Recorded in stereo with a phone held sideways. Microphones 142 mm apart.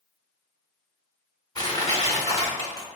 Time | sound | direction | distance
1.6 | crushing | 25° left (ahead or behind) | 1.9 m